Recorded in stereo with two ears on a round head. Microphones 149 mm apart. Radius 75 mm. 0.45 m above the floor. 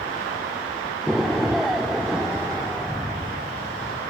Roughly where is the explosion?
Centre.